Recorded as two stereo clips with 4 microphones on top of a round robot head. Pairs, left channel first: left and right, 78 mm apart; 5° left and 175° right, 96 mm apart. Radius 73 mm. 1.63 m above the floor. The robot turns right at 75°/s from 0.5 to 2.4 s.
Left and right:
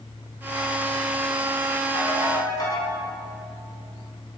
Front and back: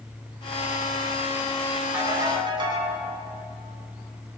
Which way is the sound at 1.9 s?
110° left.